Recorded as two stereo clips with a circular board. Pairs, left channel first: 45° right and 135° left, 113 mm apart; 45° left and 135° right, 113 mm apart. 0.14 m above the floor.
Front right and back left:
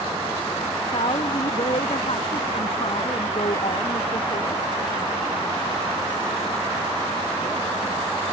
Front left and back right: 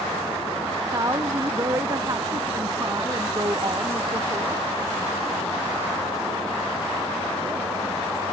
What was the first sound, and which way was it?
A woman speaking, 75° right.